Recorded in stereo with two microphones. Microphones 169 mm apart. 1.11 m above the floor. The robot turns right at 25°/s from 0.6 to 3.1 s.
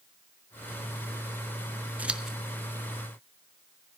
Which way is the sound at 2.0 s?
10° right (ahead or behind).